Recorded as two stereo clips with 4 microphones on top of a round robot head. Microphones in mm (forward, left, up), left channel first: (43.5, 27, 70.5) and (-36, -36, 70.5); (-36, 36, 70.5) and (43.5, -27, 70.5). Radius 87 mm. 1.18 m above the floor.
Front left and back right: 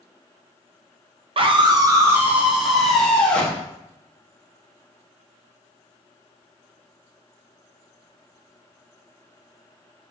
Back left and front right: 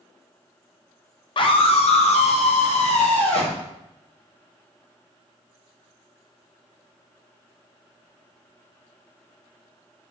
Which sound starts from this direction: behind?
A scream, at 1.4 s.